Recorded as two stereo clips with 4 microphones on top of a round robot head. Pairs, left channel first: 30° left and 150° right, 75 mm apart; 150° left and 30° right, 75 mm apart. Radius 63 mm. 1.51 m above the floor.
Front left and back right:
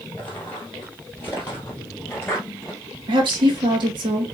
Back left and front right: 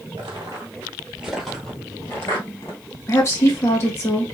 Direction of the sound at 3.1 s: 155° right.